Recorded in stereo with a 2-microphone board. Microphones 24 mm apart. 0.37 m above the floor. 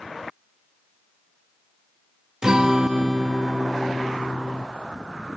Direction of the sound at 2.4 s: 30° right (ahead or behind).